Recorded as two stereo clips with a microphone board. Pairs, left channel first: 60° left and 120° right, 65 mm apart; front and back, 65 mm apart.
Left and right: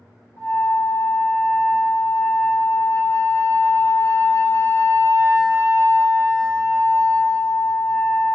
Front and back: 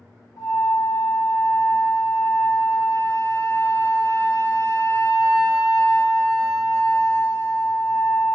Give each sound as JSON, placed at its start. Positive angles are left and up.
{"t": 0.4, "sound": "a flute", "azimuth_deg": -95, "distance_m": 1.7}